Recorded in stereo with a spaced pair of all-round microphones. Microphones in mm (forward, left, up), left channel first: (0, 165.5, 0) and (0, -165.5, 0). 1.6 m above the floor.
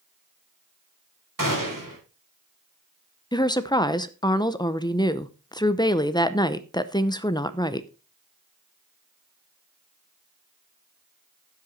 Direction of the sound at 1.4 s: 70° right (ahead or behind).